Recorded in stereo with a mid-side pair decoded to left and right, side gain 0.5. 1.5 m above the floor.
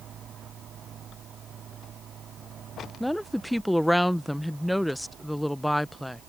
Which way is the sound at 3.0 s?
5° left.